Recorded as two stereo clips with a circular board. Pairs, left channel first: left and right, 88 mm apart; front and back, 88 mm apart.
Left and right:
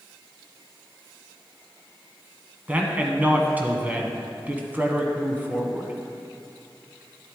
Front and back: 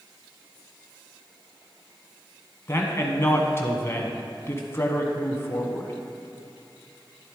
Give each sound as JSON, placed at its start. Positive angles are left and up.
{"t": 2.7, "sound": "a man speaking", "azimuth_deg": -35, "distance_m": 1.2}